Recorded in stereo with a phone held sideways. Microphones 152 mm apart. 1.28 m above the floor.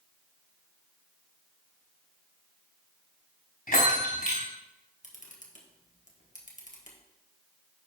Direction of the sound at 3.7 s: 70° left (ahead or behind).